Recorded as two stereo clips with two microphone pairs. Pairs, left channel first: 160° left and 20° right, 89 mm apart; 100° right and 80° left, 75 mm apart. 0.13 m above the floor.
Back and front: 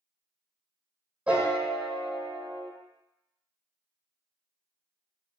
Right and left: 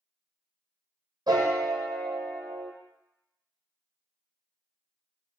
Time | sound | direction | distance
1.3 | a piano | 55° left | 0.7 m